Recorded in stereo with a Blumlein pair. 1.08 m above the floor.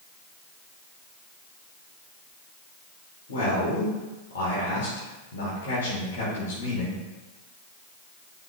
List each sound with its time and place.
3.3 s a man speaking: 60° left, 2 m